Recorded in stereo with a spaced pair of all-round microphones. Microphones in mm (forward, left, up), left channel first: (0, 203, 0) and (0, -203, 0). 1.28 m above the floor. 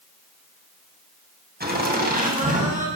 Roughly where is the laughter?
Right.